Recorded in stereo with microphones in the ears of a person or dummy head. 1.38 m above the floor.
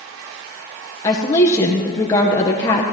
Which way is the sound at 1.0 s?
15° left (ahead or behind).